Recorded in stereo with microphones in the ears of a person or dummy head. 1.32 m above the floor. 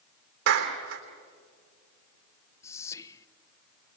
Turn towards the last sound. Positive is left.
turn(degrees=15)  # may be behind; listen again after turning